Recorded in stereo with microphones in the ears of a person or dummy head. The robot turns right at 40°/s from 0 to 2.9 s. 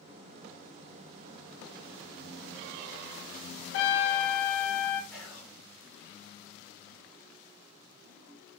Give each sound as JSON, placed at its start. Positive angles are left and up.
{"t": 3.7, "sound": "a trumpet", "side_deg": 70, "distance_m": 0.5}
{"t": 5.1, "sound": "whispering", "side_deg": 0, "distance_m": 1.1}